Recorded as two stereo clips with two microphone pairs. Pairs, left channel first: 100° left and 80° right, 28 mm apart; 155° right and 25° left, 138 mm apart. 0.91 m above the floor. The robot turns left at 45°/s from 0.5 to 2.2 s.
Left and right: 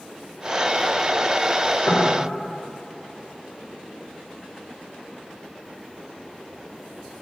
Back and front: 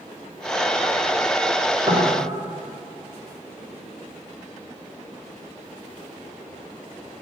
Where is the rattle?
No rattle in this recording.